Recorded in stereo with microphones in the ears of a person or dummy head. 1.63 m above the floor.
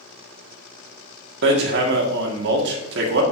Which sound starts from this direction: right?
Hammering, at 1.4 s.